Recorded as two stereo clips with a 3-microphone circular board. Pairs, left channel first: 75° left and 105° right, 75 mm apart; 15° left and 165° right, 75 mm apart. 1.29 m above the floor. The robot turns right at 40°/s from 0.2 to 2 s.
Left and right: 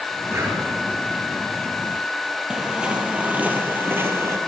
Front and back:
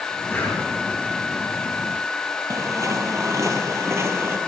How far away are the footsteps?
About 1.8 m.